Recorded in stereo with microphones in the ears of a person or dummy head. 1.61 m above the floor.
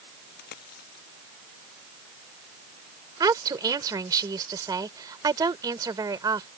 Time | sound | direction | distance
0.3 | a dropped coin | 55° left (ahead or behind) | ?
3.2 | a woman speaking | 20° right (ahead or behind) | ?